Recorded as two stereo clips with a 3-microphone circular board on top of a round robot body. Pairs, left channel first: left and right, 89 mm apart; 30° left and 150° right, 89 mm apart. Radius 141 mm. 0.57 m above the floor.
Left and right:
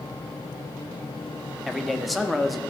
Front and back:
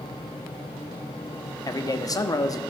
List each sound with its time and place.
1.7 s a man speaking: straight ahead, 1.7 m